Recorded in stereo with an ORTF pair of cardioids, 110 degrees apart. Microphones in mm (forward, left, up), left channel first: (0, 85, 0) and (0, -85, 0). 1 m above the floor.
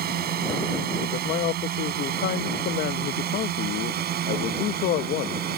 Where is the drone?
65° right.